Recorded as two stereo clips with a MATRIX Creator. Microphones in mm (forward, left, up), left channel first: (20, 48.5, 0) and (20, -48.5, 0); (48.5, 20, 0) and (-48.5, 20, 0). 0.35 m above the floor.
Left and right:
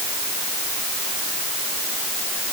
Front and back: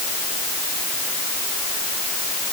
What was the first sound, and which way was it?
Only background noise.